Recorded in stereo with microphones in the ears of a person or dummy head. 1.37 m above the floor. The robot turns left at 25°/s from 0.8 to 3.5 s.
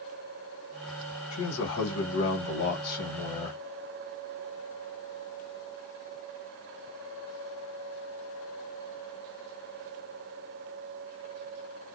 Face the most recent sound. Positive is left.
turn(degrees=40)